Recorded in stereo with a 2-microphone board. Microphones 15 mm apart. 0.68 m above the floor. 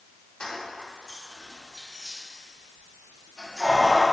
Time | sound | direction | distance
0.4 | keys jangling | 70° left (ahead or behind) | 0.8 m